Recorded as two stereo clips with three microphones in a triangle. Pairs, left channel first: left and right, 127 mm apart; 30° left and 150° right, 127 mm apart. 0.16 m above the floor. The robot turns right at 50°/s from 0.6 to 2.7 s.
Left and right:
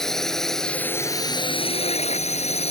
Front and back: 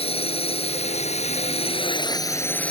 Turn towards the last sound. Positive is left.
turn(degrees=110)